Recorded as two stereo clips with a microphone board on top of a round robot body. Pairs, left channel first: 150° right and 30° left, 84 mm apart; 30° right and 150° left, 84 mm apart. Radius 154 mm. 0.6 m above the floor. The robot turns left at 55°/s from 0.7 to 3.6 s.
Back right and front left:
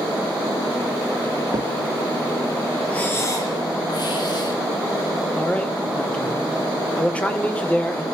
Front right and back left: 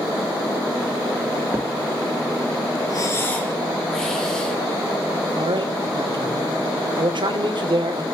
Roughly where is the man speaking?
Behind left.